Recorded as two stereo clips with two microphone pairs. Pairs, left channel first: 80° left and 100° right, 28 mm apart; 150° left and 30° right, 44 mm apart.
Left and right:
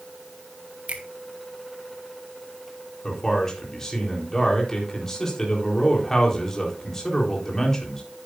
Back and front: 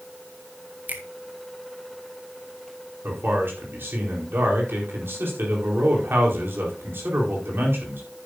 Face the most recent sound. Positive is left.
turn(degrees=5)